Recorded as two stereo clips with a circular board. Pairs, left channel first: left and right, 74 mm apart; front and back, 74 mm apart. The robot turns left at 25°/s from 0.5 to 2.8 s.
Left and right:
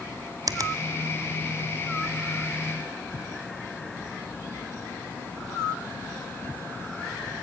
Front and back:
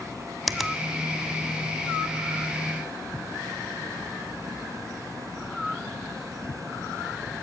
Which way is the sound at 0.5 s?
90° right.